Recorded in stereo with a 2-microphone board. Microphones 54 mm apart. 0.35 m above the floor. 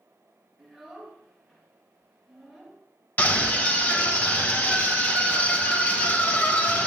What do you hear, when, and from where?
0.6 s a child speaking: 5° left (ahead or behind), 3.5 m
3.2 s a scream: 35° left (ahead or behind), 1.7 m